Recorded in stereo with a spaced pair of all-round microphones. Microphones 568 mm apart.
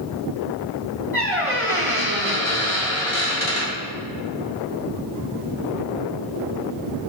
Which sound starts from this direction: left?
A squeak, at 1.1 s.